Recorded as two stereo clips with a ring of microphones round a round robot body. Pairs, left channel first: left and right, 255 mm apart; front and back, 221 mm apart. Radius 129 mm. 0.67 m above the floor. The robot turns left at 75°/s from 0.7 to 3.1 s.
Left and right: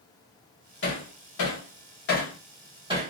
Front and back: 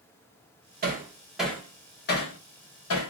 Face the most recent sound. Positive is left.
turn(degrees=-35)